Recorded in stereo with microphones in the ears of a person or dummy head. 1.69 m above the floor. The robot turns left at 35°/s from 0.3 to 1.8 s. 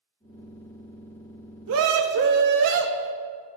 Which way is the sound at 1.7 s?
60° right (ahead or behind).